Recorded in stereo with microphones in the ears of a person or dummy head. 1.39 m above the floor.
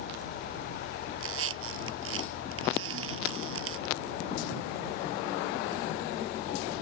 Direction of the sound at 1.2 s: 85° right.